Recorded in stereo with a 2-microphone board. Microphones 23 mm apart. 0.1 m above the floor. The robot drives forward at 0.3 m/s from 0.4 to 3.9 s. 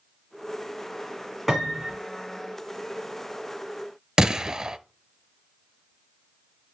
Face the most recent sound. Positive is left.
turn(degrees=-30)  # may be behind; listen again after turning